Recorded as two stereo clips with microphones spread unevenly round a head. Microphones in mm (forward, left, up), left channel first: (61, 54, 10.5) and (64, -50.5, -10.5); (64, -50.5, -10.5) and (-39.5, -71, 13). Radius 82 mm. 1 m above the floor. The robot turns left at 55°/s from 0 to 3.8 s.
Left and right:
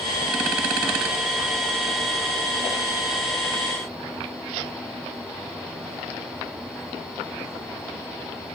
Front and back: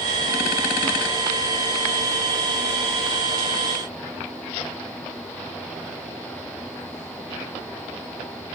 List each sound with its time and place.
Only background noise.